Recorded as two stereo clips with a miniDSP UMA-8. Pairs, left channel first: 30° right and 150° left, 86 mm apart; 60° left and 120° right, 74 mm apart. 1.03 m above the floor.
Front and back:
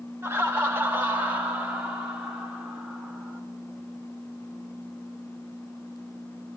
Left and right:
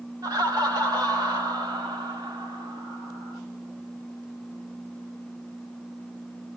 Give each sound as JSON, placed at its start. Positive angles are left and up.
{"t": 0.2, "sound": "laughter", "azimuth_deg": -150, "distance_m": 1.7}